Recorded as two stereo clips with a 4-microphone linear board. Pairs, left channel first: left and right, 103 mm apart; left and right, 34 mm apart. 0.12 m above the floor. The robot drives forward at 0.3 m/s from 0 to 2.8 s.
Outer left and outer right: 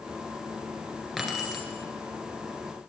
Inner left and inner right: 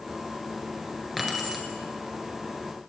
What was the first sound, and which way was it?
Keys jangling, centre (ahead or behind).